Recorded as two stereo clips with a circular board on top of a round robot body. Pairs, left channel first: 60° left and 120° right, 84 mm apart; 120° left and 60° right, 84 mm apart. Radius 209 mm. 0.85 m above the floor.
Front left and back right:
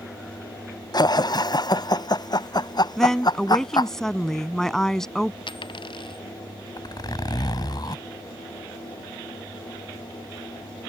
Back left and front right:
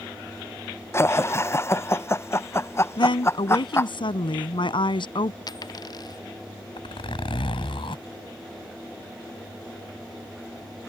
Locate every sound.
0.9 s laughter: 70° left
3.0 s a woman speaking: 145° left
5.5 s a dropped coin: 80° left
6.8 s a zipper: 100° left